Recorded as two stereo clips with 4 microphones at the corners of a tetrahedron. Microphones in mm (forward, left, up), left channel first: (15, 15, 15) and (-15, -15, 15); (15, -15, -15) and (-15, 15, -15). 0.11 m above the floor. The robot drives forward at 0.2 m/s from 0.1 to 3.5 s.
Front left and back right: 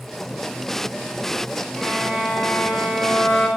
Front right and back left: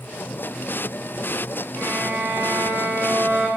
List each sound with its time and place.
1.8 s a violin: 150° left, 6 m; by 3.5 s 155° left, 6 m